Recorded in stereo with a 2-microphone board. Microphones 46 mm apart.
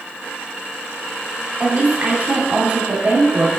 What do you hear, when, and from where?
1.6 s a woman speaking: 35° right (ahead or behind), 1.9 m